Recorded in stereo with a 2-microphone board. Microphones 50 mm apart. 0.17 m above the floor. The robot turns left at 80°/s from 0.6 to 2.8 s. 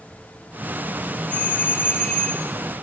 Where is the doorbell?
105° left, 2.5 m; by 2.5 s 5° left, 2.5 m.